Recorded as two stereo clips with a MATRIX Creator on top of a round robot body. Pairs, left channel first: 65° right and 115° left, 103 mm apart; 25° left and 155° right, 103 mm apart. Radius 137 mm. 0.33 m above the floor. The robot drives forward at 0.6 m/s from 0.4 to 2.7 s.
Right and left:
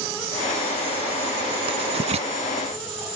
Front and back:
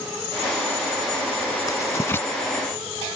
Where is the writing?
80° left; by 2.3 s 95° left.